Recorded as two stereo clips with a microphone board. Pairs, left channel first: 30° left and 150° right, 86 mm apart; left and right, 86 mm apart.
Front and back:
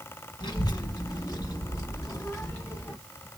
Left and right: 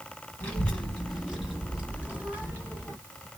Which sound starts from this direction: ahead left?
A child speaking, at 0.4 s.